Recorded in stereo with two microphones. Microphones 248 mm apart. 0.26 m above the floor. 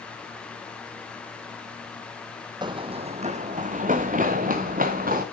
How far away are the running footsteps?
About 0.5 m.